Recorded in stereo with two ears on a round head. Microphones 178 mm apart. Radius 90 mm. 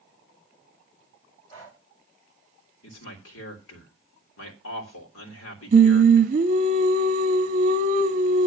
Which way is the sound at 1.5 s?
20° left (ahead or behind).